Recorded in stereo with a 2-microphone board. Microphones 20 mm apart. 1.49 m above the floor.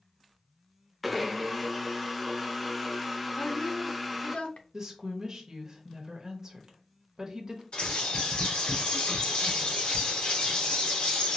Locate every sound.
1.0 s a blender: 5° right (ahead or behind), 0.6 m
3.4 s a woman speaking: 70° left (ahead or behind), 0.8 m
4.7 s a woman speaking: 30° right (ahead or behind), 1.1 m
7.7 s a bird: 60° left (ahead or behind), 2.5 m